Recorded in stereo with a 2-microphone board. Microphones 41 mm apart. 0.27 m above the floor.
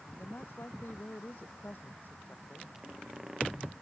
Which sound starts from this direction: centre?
A squeak, at 2.8 s.